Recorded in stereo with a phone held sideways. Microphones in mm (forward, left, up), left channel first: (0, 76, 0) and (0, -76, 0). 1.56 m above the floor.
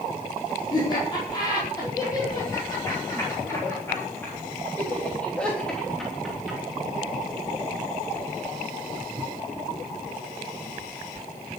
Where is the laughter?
30° left (ahead or behind), 5 m; by 6.6 s 5° right (ahead or behind), 3.5 m.